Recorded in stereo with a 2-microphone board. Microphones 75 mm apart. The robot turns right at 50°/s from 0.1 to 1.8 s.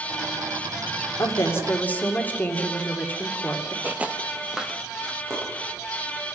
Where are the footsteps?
20° right (ahead or behind), 1.3 m; by 5.2 s 5° right (ahead or behind), 2 m.